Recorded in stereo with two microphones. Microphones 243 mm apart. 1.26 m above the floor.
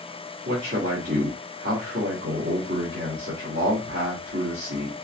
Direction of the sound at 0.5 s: 50° right (ahead or behind).